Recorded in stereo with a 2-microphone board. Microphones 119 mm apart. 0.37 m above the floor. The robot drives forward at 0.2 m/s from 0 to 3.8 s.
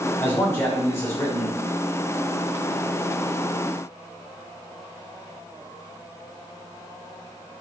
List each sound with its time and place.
0.2 s a man speaking: 20° left (ahead or behind), 0.9 m